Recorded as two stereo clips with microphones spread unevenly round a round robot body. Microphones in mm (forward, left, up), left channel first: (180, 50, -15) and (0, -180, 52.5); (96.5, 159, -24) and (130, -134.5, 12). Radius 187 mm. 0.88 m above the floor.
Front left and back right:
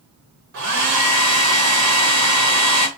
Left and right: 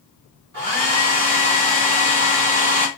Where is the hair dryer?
110° right, 1.1 m.